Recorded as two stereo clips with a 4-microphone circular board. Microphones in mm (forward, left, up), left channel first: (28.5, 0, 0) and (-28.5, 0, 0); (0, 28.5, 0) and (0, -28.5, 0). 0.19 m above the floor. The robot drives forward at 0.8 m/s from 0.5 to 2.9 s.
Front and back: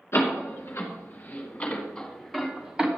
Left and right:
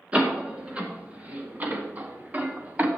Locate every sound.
0.1 s a door slam: 25° right, 2 m; by 2.9 s 115° right, 1.4 m